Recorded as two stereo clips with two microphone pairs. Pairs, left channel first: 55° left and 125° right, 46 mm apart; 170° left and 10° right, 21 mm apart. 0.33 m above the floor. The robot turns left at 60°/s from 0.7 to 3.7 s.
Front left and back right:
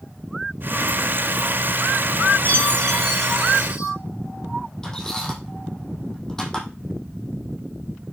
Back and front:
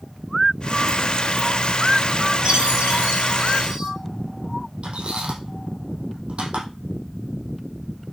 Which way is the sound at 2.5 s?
15° left.